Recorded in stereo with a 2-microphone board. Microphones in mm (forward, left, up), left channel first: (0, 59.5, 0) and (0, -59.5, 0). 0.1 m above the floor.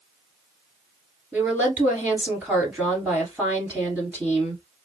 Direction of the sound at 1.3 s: 15° right (ahead or behind).